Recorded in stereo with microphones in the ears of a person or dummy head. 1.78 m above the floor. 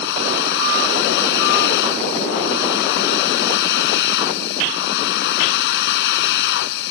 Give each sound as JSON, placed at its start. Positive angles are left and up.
{"t": 0.0, "sound": "a machine running", "side_deg": 65}